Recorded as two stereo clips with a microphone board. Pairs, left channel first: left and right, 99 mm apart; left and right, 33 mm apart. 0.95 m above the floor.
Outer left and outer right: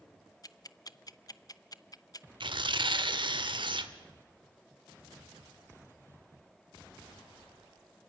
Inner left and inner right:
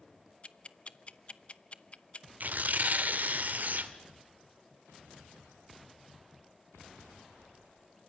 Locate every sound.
0.4 s ticking: 45° left (ahead or behind), 0.7 m
2.4 s tearing paper: 60° right (ahead or behind), 1.3 m